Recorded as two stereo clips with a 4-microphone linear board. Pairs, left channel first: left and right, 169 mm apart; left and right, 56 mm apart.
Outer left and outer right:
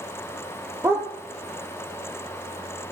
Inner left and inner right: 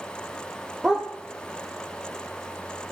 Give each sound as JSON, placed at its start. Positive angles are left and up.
{"t": 0.8, "sound": "a dog barking", "side_deg": -15, "distance_m": 1.5}